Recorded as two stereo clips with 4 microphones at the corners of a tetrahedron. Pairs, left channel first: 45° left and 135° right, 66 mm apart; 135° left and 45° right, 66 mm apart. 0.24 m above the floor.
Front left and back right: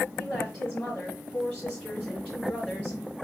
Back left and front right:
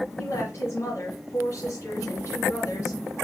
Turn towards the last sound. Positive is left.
turn(degrees=120)